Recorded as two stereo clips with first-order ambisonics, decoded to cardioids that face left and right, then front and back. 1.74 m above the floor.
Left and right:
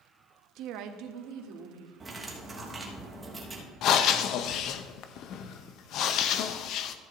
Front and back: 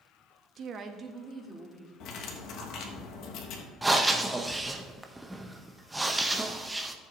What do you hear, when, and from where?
0.6 s a woman speaking: 130° right, 0.7 m; by 1.9 s 100° right, 1.6 m
2.0 s cutlery clinking: 15° right, 1.3 m
3.8 s breathing: 100° left, 0.6 m